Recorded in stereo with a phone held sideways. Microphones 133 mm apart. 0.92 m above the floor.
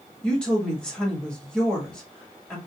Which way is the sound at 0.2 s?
5° left (ahead or behind).